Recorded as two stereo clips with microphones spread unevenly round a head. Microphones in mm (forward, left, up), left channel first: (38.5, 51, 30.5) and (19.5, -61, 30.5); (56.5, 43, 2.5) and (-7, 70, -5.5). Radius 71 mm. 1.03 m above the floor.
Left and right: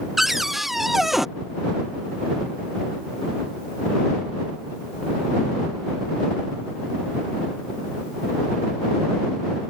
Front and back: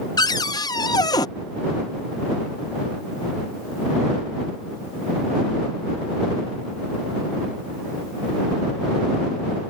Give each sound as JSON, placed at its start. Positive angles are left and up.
{"t": 0.2, "sound": "a cupboard door", "azimuth_deg": -10}